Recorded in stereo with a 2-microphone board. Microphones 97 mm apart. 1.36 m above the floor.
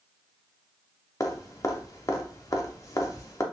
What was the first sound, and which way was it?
Dripping, 35° left (ahead or behind).